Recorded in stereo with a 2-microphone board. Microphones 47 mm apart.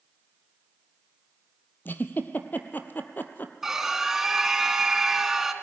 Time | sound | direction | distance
1.9 | a giggle | 40° left (ahead or behind) | 1.2 m
3.6 | a scream | 10° right (ahead or behind) | 1.6 m